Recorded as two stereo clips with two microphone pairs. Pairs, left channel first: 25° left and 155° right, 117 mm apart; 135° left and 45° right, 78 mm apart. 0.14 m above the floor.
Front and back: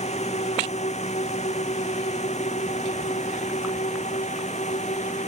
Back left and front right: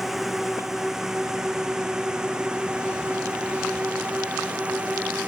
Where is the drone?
40° left; by 5.3 s 30° left.